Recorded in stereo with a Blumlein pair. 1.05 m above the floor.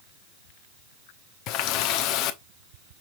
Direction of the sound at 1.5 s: 40° left.